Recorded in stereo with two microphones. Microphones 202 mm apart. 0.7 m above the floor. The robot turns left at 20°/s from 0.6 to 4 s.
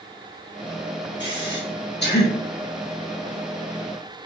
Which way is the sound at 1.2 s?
65° left (ahead or behind).